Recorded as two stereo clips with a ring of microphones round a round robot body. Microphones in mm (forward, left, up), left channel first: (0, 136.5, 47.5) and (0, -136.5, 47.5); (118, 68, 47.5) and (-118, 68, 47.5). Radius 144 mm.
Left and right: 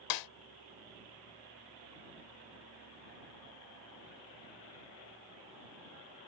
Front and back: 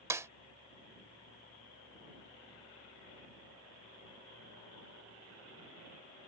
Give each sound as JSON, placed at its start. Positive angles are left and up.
{"t": 0.1, "sound": "a snare drum", "azimuth_deg": 100}